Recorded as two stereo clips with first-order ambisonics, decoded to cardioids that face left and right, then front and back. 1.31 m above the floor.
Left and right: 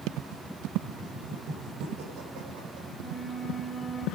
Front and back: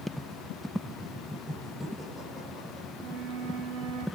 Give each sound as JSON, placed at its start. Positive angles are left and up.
{"t": 0.8, "sound": "laughter", "azimuth_deg": -95, "distance_m": 4.0}
{"t": 2.9, "sound": "a flute", "azimuth_deg": 175, "distance_m": 2.0}